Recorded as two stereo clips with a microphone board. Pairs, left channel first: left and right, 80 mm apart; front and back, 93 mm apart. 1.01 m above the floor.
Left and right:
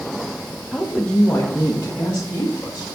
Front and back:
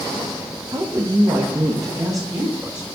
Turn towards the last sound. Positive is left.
turn(degrees=130)